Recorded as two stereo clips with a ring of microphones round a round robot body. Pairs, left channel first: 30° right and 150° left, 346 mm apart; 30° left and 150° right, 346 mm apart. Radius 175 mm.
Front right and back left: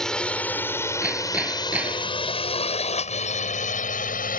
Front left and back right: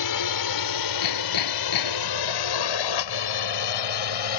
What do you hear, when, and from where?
0.0 s a drone: 60° left; by 4.4 s 35° left
1.0 s hammering: 65° left